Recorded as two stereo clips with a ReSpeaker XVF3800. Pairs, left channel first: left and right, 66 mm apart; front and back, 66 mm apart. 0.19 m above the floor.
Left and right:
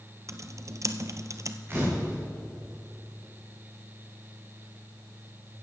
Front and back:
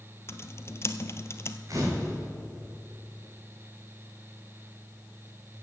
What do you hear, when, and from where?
0.3 s typing on a keyboard: 50° right, 0.7 m
1.7 s a camera shutter: 140° right, 4 m